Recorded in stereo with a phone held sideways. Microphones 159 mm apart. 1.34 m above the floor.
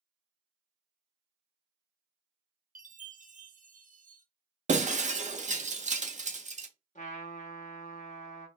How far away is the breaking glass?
About 0.7 m.